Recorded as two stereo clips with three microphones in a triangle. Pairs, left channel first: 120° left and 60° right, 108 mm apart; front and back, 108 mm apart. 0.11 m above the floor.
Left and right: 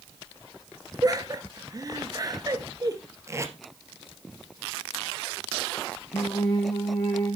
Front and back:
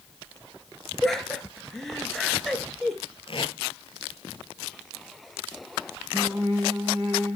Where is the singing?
120° left, 3.5 m.